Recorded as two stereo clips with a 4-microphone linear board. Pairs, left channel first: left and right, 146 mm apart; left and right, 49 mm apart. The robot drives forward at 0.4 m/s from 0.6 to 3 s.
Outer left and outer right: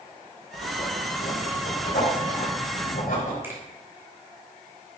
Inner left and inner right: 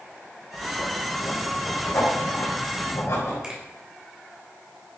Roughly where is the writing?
Left.